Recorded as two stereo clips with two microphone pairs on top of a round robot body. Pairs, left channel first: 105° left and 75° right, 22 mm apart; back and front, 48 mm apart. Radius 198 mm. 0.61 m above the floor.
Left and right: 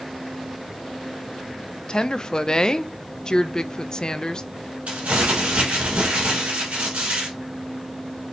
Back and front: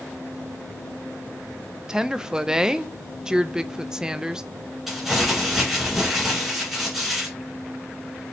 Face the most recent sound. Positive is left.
turn(degrees=-85)